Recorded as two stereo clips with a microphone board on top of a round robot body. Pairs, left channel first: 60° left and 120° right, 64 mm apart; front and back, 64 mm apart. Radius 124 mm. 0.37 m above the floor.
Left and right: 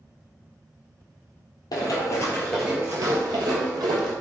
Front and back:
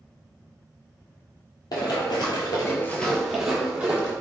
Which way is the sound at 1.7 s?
30° left.